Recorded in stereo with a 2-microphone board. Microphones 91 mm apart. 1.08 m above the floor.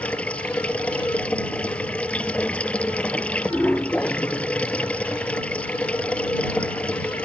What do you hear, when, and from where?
0.0 s running water: 15° left (ahead or behind)